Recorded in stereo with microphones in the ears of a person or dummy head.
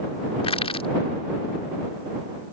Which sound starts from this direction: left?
Crushing, at 0.4 s.